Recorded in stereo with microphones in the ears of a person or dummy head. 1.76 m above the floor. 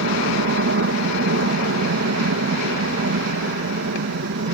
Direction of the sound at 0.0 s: 65° right (ahead or behind).